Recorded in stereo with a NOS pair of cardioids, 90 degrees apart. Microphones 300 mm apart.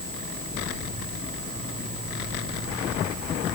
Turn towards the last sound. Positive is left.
No sound to turn to.